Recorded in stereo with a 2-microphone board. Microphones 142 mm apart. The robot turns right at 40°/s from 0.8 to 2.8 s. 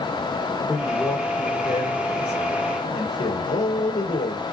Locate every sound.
0.7 s a man speaking: 10° right, 3.5 m; by 4.4 s 70° left, 3.5 m